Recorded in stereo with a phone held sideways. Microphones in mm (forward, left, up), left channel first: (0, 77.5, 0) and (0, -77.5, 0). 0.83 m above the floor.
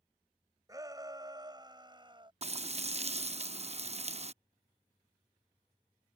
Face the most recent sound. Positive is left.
turn(degrees=-45)  # may be behind; listen again after turning